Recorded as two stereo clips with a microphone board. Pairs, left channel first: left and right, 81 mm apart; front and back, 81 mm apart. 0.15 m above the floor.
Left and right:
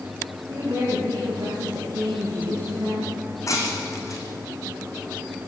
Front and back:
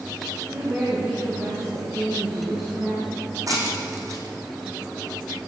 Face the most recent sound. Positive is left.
turn(degrees=135)